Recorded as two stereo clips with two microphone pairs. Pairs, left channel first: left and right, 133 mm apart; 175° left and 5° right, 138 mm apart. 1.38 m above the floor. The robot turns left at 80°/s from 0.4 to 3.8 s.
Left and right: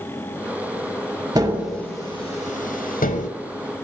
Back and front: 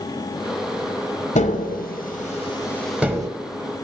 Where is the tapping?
150° right, 0.7 m; by 3.3 s 55° left, 0.7 m.